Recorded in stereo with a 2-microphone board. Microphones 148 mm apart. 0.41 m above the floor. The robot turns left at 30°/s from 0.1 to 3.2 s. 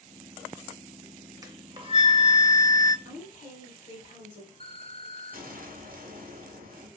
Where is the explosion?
75° right (ahead or behind), 0.8 m.